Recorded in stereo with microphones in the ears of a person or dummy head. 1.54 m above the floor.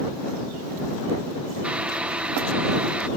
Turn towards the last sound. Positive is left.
turn(degrees=-5)  # may be behind; listen again after turning